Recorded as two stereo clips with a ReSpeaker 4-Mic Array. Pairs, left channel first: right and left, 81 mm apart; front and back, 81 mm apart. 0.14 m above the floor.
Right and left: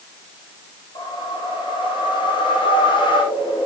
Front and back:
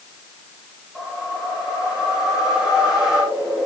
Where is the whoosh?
95° right, 9 m.